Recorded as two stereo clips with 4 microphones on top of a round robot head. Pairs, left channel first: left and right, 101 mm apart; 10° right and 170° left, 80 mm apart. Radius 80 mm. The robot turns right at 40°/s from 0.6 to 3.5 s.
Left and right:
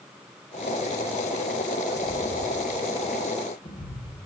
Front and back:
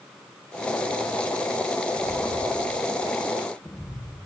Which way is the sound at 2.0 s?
25° left.